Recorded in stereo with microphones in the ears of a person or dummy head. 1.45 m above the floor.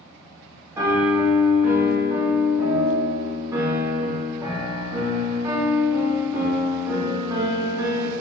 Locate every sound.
0.8 s a piano: 10° right (ahead or behind), 1.3 m